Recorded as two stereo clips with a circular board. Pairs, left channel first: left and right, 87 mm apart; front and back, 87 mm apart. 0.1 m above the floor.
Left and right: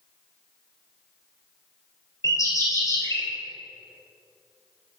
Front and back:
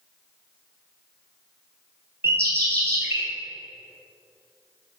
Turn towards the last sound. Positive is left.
turn(degrees=125)